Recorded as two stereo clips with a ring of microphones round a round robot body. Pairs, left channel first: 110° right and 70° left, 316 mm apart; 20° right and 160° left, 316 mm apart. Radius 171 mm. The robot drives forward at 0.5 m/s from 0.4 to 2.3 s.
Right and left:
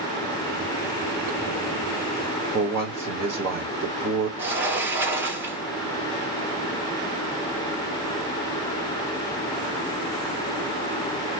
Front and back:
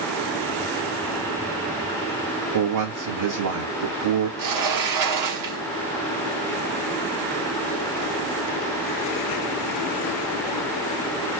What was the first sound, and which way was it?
A man speaking, 150° left.